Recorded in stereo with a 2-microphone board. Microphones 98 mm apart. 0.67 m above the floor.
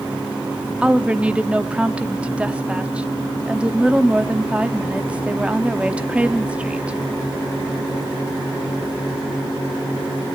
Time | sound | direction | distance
0.8 | a woman speaking | 10° right (ahead or behind) | 0.8 m